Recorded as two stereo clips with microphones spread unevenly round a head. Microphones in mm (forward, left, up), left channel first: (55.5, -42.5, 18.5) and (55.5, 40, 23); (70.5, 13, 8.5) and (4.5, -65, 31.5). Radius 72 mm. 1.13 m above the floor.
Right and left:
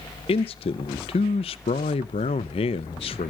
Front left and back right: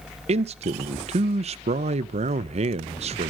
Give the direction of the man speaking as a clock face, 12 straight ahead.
4 o'clock.